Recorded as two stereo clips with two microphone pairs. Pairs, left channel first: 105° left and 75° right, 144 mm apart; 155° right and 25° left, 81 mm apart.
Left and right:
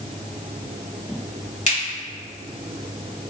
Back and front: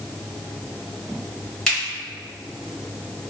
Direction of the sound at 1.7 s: 125° left.